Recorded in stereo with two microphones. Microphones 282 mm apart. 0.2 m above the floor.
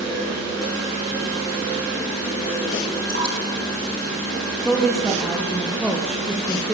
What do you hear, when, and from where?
3.1 s dripping: 40° right (ahead or behind), 7.5 m
4.7 s a woman speaking: centre (ahead or behind), 5 m